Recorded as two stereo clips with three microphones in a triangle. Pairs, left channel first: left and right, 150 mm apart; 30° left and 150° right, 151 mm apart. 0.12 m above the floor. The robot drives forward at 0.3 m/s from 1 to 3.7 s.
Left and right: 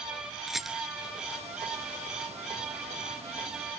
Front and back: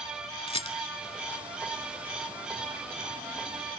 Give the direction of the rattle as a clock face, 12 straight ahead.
12 o'clock.